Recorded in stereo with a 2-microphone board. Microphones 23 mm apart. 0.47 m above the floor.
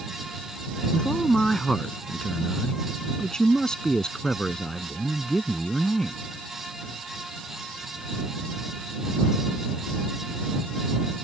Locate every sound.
0.9 s a man speaking: 25° left (ahead or behind)